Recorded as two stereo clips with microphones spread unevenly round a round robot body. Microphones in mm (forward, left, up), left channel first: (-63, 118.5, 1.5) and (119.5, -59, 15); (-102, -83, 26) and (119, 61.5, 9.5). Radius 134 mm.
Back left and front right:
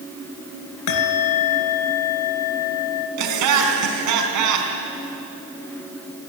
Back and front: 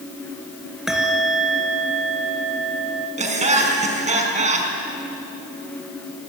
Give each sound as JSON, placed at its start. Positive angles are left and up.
{"t": 0.9, "sound": "a bell", "azimuth_deg": 120, "distance_m": 2.5}
{"t": 3.2, "sound": "laughter", "azimuth_deg": -35, "distance_m": 4.5}